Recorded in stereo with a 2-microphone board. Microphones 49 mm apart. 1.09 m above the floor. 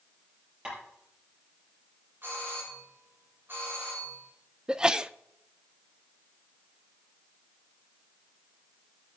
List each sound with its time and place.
0.7 s tapping: 20° right (ahead or behind), 8 m
2.2 s a doorbell: 45° right (ahead or behind), 6 m
4.7 s a sneeze: 15° right (ahead or behind), 0.5 m